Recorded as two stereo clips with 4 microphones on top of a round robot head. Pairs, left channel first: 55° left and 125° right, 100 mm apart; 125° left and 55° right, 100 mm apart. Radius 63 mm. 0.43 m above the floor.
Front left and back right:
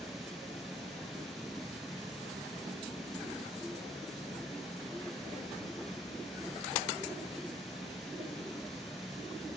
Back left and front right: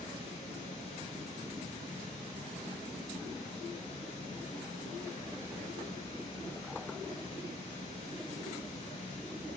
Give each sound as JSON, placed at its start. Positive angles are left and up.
{"t": 0.0, "sound": "running water", "azimuth_deg": 145, "distance_m": 2.0}